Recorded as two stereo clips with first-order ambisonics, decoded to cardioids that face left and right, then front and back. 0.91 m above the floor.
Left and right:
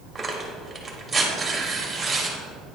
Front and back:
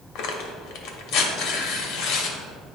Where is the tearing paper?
5° right, 0.9 m.